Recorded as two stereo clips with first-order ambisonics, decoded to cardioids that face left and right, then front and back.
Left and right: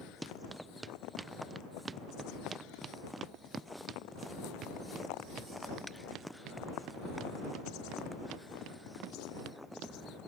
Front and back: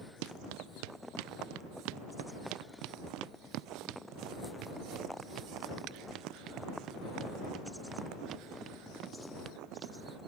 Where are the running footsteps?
175° right; by 9.9 s 120° right.